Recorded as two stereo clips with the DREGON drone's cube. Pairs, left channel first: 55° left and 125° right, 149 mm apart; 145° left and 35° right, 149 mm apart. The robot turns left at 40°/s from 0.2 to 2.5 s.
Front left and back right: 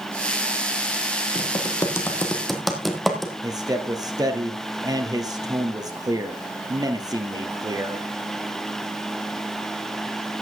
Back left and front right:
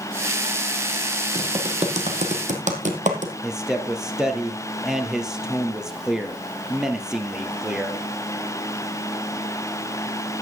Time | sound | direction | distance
1.4 | typing on a keyboard | 10° left | 1.8 m
3.4 | a man speaking | 115° right | 1.5 m